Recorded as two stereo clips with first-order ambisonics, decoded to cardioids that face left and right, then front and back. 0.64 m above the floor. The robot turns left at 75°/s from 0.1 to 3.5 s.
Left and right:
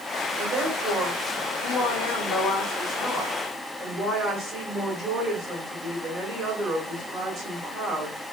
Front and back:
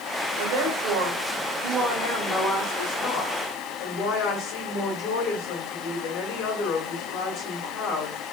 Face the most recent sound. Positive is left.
turn(degrees=-15)